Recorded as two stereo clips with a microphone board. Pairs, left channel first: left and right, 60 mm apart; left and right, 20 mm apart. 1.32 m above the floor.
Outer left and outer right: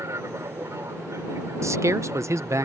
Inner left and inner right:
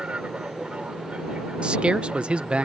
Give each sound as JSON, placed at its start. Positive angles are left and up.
{"t": 0.0, "sound": "an aircraft", "side_deg": -55}
{"t": 1.6, "sound": "a man speaking", "side_deg": -55}